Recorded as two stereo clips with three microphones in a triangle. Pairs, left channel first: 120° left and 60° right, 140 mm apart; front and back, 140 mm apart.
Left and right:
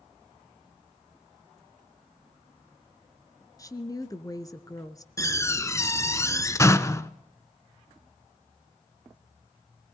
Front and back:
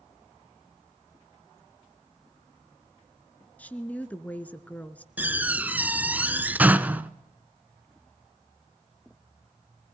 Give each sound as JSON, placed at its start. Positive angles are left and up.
{"t": 3.6, "sound": "a woman speaking", "azimuth_deg": 75, "distance_m": 1.3}
{"t": 5.2, "sound": "a door slam", "azimuth_deg": 125, "distance_m": 0.8}